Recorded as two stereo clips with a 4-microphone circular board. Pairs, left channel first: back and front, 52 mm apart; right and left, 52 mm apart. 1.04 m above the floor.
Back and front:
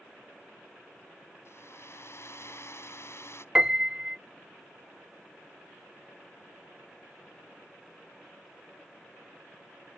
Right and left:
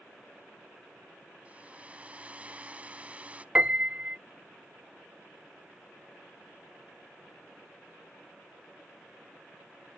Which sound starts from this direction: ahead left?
A piano, at 3.5 s.